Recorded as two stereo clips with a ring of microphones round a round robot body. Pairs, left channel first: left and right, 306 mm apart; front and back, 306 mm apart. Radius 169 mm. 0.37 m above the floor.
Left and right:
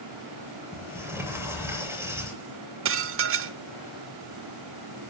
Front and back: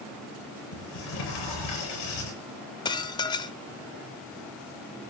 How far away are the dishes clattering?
About 0.8 m.